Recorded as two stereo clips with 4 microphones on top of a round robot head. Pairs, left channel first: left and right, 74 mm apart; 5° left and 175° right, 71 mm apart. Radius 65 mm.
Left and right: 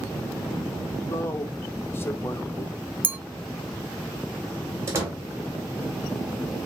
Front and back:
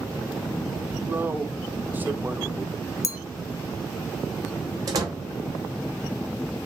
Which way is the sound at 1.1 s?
135° left.